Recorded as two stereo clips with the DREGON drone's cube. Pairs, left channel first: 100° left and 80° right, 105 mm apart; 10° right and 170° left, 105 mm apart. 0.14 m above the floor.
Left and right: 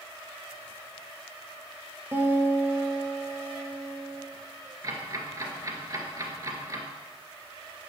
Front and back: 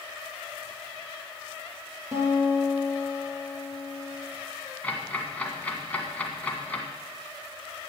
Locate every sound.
2.1 s a guitar: 140° right, 2.5 m
4.8 s ticking: 75° right, 1.9 m